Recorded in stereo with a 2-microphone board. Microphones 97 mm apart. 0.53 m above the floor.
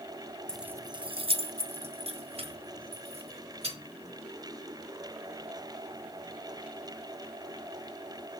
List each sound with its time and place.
0.5 s keys jangling: 10° left (ahead or behind), 0.5 m; by 3.8 s 85° right, 4 m